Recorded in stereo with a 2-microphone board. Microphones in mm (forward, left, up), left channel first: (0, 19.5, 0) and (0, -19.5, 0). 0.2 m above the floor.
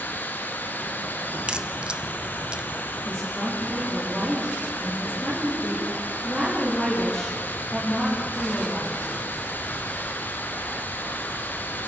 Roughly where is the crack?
Right.